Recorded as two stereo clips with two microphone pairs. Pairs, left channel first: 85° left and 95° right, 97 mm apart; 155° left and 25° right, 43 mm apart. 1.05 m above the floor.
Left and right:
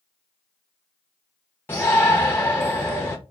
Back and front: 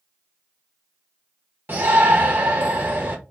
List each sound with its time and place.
1.7 s a shout: 20° left, 0.7 m